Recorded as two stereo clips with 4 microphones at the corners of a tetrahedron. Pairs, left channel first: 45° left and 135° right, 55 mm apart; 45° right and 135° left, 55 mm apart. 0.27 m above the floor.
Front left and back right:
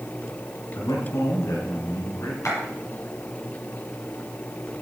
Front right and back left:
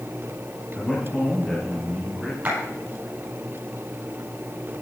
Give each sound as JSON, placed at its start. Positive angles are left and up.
{"t": 0.8, "sound": "a man speaking", "azimuth_deg": 40, "distance_m": 3.5}
{"t": 2.5, "sound": "a clap", "azimuth_deg": 70, "distance_m": 7.5}